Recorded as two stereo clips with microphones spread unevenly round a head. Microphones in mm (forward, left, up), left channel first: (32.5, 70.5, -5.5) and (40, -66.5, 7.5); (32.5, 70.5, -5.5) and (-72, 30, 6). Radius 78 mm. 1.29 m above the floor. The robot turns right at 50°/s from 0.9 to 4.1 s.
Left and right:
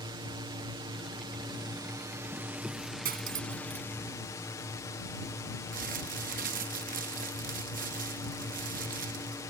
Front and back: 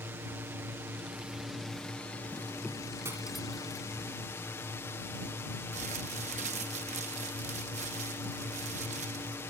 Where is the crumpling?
120° right.